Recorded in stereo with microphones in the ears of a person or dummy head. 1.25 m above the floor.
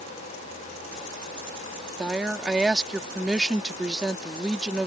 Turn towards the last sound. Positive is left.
turn(degrees=0)  # may be behind; listen again after turning